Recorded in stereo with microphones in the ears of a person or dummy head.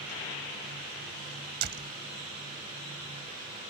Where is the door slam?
50° right (ahead or behind).